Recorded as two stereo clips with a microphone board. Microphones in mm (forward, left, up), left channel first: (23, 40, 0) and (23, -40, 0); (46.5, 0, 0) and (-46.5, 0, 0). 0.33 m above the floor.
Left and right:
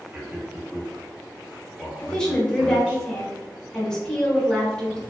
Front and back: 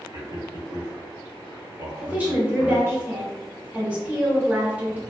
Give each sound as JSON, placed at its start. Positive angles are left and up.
{"t": 0.1, "sound": "a man speaking", "azimuth_deg": -145, "distance_m": 1.0}
{"t": 2.0, "sound": "a woman speaking", "azimuth_deg": 155, "distance_m": 0.9}